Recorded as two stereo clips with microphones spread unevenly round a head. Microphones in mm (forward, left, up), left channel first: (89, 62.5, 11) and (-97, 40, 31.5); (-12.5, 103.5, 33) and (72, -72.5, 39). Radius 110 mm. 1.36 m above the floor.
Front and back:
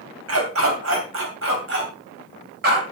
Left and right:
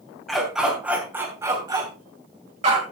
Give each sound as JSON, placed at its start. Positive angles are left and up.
{"t": 0.3, "sound": "a dog barking", "azimuth_deg": -155, "distance_m": 3.0}